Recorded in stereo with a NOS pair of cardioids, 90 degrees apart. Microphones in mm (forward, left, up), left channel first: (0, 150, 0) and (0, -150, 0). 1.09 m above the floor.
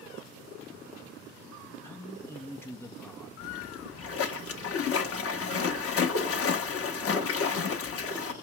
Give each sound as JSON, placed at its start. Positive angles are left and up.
{"t": 1.8, "sound": "a man speaking", "azimuth_deg": 10, "distance_m": 1.1}
{"t": 3.4, "sound": "a splash", "azimuth_deg": 50, "distance_m": 1.2}